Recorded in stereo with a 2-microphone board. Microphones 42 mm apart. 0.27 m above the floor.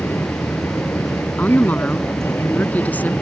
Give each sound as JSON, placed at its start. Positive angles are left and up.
{"t": 0.0, "sound": "an aircraft", "side_deg": 70}
{"t": 1.4, "sound": "a woman speaking", "side_deg": 40}